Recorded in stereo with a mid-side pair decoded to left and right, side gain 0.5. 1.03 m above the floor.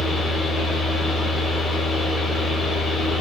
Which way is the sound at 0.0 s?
40° left.